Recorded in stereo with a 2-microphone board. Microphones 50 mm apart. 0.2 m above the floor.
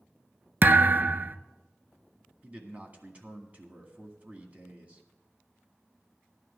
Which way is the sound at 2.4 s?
30° right (ahead or behind).